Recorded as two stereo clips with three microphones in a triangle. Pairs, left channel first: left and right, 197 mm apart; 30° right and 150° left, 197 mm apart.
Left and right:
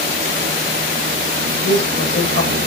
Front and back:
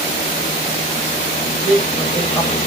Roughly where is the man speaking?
Ahead left.